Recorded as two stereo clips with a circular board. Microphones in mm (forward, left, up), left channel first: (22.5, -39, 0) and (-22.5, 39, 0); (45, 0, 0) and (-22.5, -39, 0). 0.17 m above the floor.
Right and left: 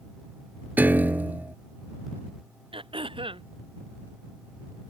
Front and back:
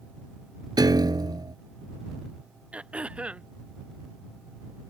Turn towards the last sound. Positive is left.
turn(degrees=135)